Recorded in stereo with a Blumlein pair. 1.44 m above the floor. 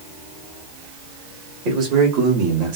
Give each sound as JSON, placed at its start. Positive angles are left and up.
{"t": 1.6, "sound": "a man speaking", "azimuth_deg": -40, "distance_m": 2.0}